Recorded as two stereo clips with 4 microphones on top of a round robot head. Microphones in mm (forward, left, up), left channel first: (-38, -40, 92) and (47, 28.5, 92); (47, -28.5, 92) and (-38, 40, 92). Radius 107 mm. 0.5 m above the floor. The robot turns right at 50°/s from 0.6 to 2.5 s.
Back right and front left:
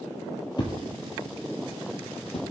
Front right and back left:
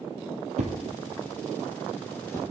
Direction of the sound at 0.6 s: 165° left.